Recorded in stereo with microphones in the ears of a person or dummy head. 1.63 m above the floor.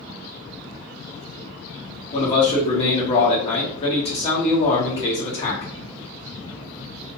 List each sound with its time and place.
2.1 s a man speaking: 35° left (ahead or behind), 0.9 m